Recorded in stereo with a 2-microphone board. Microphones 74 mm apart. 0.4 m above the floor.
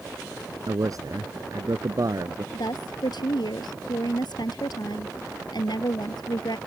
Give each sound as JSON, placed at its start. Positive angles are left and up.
{"t": 0.7, "sound": "a man speaking", "side_deg": -55}
{"t": 2.5, "sound": "a woman speaking", "side_deg": 75}